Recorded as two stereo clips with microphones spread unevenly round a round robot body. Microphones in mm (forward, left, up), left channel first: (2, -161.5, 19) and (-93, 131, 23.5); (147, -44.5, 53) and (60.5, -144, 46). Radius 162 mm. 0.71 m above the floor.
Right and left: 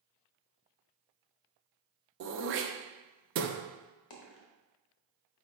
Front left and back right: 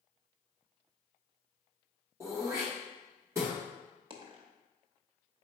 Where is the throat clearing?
155° left, 0.7 m.